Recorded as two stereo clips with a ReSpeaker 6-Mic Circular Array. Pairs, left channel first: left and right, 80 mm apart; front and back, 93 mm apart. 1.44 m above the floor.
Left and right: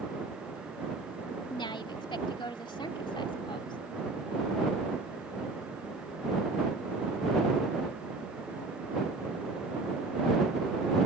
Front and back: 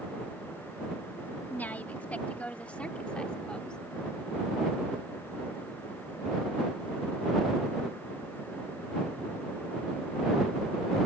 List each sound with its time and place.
1.5 s a woman speaking: 75° left; by 3.8 s 80° left